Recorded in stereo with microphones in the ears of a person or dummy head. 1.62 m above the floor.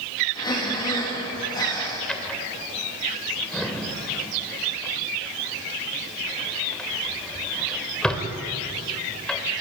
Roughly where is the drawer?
Centre.